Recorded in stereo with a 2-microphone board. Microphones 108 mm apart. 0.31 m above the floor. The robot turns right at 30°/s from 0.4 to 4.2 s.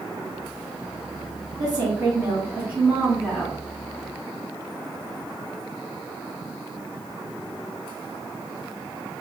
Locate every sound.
1.6 s a woman speaking: 50° right, 2 m; by 3.6 s 10° left, 2 m